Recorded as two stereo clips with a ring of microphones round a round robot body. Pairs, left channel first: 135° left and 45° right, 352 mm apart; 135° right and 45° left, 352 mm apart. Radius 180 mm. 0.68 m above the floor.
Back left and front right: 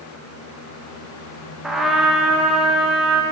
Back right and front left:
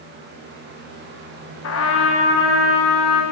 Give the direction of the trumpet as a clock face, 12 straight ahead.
4 o'clock.